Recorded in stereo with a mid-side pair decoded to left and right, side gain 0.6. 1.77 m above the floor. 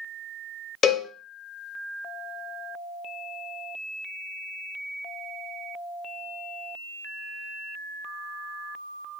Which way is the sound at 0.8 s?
40° left.